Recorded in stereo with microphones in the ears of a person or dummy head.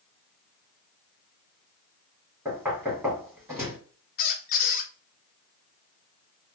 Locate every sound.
2.5 s knocking: 10° right (ahead or behind), 1.2 m
4.2 s a squeak: 45° left (ahead or behind), 0.6 m